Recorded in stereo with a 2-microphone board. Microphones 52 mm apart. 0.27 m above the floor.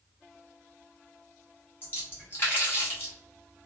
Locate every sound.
1.8 s a splash: 35° left (ahead or behind), 1.6 m